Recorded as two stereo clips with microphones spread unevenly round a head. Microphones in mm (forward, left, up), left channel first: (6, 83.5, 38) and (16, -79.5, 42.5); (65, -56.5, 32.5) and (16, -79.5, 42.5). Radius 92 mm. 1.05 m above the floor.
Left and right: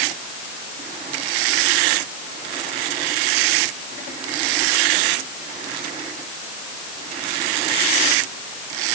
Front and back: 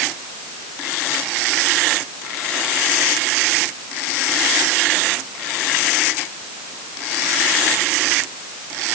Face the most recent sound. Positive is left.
No sound to turn to.